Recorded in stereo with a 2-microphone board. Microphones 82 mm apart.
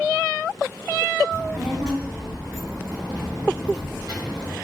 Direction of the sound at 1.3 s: 35° right (ahead or behind).